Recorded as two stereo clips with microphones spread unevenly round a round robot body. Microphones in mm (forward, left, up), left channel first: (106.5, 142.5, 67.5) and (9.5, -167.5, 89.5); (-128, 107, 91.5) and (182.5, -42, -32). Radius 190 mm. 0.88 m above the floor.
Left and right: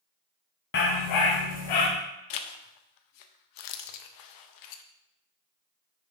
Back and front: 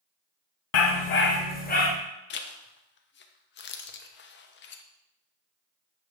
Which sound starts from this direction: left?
A zipper, at 2.3 s.